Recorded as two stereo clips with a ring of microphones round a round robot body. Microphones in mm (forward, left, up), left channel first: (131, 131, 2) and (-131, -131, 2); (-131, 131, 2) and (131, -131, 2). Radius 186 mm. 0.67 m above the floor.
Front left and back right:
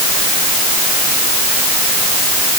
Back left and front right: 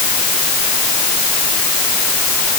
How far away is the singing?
No singing in this recording.